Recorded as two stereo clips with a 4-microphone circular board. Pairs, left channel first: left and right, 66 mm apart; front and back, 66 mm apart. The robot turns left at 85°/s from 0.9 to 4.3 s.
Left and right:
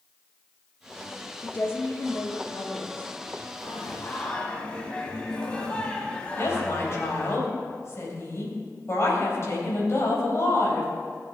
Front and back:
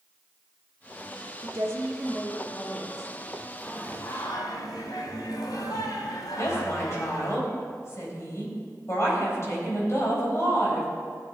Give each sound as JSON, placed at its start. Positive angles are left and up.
{"t": 1.4, "sound": "a woman speaking", "azimuth_deg": 160, "distance_m": 1.5}
{"t": 3.6, "sound": "singing", "azimuth_deg": 70, "distance_m": 1.6}
{"t": 6.4, "sound": "a woman speaking", "azimuth_deg": 45, "distance_m": 3.5}